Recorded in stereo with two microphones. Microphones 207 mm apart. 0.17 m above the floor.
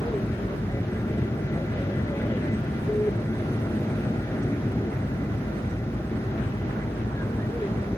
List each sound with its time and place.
0.0 s an aircraft: 15° left (ahead or behind)